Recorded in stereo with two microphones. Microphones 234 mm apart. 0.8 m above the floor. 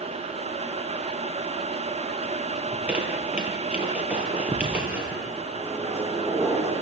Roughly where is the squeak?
Centre.